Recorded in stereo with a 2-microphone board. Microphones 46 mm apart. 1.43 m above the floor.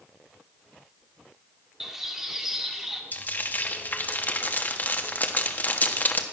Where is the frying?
40° left (ahead or behind), 1.3 m.